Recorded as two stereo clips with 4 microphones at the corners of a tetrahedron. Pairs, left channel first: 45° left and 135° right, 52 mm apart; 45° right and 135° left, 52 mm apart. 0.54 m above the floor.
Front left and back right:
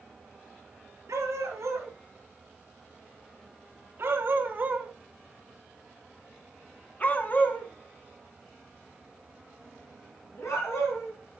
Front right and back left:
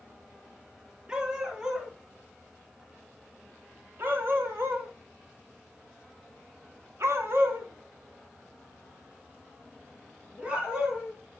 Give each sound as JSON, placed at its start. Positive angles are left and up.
{"t": 1.1, "sound": "a dog barking", "azimuth_deg": -155, "distance_m": 3.5}